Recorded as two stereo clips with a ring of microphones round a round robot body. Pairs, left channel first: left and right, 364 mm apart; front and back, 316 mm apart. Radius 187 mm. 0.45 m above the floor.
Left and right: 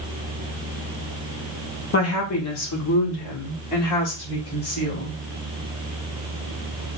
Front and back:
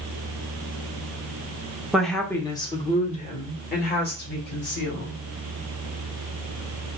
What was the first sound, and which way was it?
A woman speaking, 95° left.